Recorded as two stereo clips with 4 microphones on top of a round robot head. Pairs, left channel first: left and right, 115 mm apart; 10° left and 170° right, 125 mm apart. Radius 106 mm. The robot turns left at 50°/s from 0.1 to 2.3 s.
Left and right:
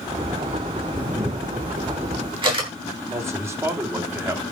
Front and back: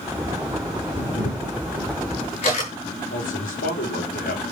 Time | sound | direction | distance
1.0 | a camera shutter | 20° left | 9.5 m
3.1 | a man speaking | 20° right | 3.5 m